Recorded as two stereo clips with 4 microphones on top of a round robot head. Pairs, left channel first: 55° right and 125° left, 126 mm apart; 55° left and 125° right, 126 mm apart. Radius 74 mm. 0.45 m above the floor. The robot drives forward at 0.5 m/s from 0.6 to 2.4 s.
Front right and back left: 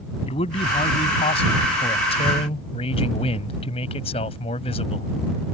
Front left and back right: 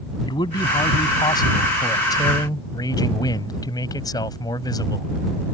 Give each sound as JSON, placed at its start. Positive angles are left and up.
{"t": 0.3, "sound": "a man speaking", "azimuth_deg": -5}